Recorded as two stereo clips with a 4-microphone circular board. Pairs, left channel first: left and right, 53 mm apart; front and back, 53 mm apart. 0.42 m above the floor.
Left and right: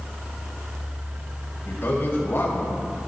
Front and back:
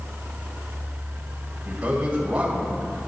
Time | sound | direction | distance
1.6 | a man speaking | 120° left | 2 m